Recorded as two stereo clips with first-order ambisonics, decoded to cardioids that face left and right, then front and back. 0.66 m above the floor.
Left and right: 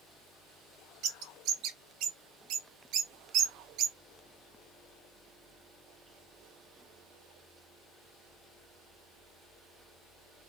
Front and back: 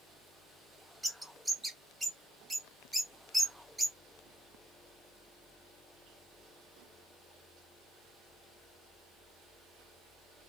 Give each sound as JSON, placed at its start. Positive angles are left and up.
{"t": 1.0, "sound": "a bird", "azimuth_deg": -100, "distance_m": 0.8}